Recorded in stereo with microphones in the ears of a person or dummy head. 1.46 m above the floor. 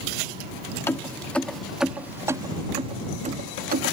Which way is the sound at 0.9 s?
15° left (ahead or behind).